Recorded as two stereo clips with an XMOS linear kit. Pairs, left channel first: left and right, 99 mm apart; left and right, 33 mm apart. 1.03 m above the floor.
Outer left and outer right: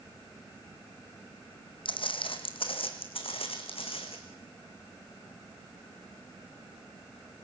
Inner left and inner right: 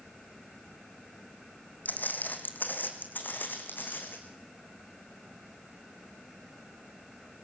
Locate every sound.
1.9 s footsteps: 60° left (ahead or behind), 2 m; by 4.2 s 75° left (ahead or behind), 3.5 m